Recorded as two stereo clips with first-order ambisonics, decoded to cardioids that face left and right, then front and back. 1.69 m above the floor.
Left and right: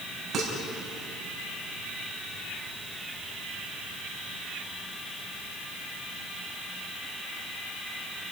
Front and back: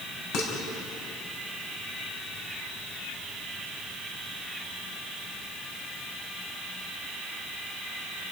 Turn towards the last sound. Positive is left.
turn(degrees=-25)